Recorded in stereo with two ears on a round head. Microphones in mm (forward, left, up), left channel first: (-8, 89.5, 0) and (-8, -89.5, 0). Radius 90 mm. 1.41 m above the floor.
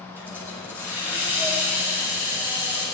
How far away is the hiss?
About 5.5 m.